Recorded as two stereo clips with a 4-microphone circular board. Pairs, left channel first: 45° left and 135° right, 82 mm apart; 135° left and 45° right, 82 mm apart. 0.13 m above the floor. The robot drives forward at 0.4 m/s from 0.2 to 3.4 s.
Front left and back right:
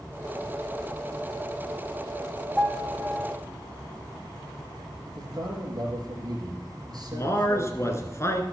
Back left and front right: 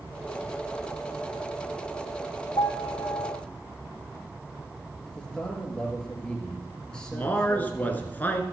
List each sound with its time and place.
2.6 s a piano: 140° left, 0.9 m; by 3.4 s 150° left, 1.2 m
5.1 s a man speaking: 145° right, 2.5 m
7.1 s a man speaking: 75° left, 1.5 m